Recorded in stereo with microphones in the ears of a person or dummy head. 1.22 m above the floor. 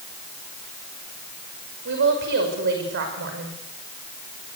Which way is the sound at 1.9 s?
55° right (ahead or behind).